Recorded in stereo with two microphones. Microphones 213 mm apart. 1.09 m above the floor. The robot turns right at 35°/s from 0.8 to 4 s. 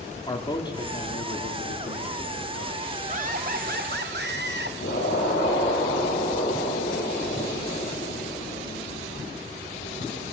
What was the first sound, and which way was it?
A man speaking, 20° left.